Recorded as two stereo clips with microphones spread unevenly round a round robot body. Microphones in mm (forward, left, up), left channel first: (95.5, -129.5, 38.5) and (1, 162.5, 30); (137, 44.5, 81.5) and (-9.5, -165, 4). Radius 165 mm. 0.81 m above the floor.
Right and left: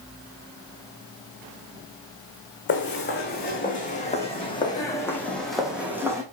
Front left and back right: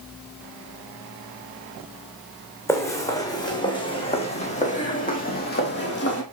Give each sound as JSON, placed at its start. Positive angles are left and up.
{"t": 2.7, "sound": "footsteps", "azimuth_deg": -20, "distance_m": 2.5}